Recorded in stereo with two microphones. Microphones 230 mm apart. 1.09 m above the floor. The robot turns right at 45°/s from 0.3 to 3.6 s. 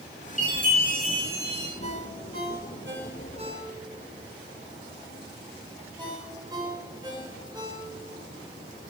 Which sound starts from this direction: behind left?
A chime, at 0.4 s.